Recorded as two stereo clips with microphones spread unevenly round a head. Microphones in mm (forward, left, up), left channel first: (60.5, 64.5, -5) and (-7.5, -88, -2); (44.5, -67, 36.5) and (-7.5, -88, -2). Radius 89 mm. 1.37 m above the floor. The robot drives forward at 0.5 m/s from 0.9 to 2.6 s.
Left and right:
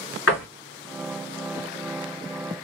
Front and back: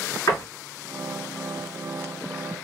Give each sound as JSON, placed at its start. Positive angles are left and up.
{"t": 0.3, "sound": "a door slam", "azimuth_deg": 90, "distance_m": 2.5}